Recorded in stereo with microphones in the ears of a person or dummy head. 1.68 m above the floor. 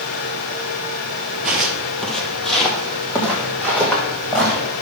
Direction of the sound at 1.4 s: 5° right (ahead or behind).